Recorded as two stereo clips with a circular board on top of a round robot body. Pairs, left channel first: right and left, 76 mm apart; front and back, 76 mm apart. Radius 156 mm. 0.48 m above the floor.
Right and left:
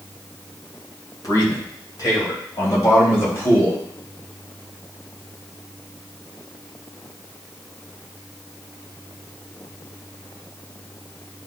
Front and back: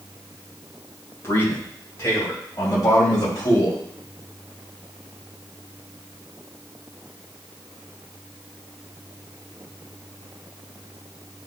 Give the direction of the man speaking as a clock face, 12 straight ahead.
2 o'clock.